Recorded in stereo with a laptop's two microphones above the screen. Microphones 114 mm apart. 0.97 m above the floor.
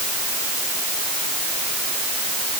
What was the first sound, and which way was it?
Only background noise.